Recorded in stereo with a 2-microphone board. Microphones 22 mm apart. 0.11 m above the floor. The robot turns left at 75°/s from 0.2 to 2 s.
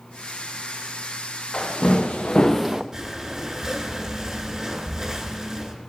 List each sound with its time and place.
1.5 s footsteps: 50° left (ahead or behind), 1.8 m; by 2.8 s 25° right (ahead or behind), 0.6 m
2.9 s breathing: 25° right (ahead or behind), 1.9 m